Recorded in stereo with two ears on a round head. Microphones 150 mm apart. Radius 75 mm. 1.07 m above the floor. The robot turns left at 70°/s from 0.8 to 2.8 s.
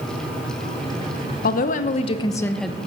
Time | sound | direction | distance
1.4 | a woman speaking | 85° left | 0.7 m